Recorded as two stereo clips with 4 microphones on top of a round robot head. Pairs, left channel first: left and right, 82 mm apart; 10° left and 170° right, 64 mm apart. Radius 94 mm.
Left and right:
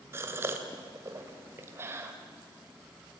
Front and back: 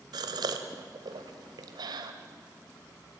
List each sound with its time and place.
0.1 s a gasp: 155° right, 1.9 m